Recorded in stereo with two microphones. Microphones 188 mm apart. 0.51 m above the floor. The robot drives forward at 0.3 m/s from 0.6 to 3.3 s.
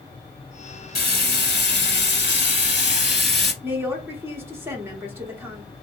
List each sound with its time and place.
0.9 s frying: 55° left (ahead or behind), 0.9 m; by 3.5 s 60° left (ahead or behind), 0.9 m
3.6 s a woman speaking: 10° right (ahead or behind), 1.0 m